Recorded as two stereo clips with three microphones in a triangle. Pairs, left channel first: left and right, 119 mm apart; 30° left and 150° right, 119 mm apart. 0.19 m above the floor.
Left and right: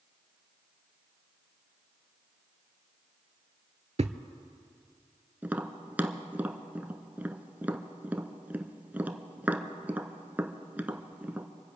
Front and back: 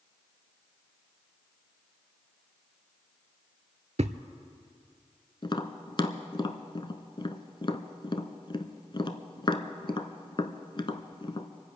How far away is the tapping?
About 0.9 m.